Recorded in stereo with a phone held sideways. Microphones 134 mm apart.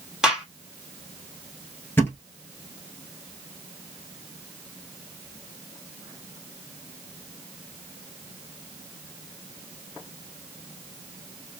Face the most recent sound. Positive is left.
turn(degrees=15)  # may be behind; listen again after turning